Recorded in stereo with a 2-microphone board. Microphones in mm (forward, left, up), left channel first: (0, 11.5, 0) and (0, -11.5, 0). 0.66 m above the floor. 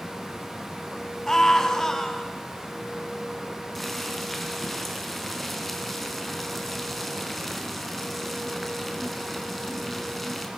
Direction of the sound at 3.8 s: 5° left (ahead or behind).